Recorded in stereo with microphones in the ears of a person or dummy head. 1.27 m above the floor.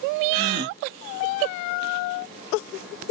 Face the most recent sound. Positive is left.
turn(degrees=-50)  # may be behind; listen again after turning